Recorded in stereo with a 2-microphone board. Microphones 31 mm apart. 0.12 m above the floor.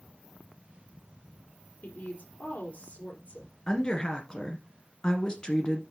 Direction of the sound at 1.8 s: 60° left (ahead or behind).